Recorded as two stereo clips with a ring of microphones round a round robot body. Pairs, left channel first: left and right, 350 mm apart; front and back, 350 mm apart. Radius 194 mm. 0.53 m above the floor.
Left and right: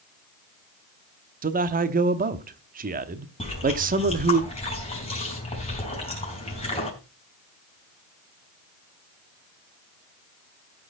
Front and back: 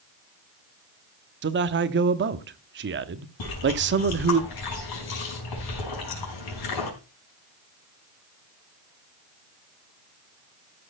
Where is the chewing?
15° left, 5 m.